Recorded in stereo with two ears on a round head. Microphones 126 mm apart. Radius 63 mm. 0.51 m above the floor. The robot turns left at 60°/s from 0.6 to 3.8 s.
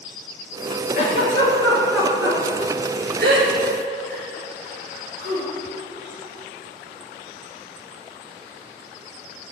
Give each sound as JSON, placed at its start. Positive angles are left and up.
{"t": 0.9, "sound": "a giggle", "side_deg": 60, "distance_m": 3.0}